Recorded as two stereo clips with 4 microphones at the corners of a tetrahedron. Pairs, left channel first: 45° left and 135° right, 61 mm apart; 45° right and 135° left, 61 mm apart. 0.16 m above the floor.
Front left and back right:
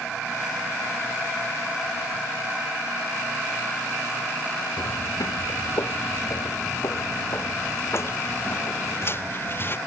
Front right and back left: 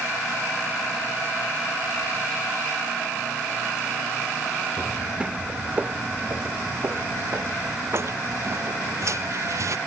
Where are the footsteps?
55° left; by 9.8 s 100° left.